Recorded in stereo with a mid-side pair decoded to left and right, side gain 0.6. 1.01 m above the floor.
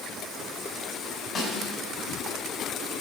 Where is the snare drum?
50° left, 4 m.